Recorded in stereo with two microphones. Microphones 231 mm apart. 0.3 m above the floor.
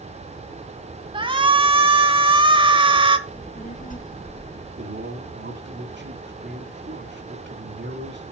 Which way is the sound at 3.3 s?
35° left (ahead or behind).